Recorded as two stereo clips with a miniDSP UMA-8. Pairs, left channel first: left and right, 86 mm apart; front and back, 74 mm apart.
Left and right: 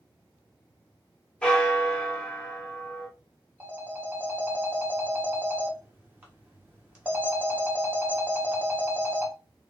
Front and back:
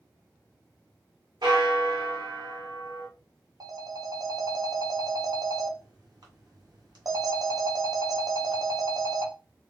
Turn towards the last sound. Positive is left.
turn(degrees=-155)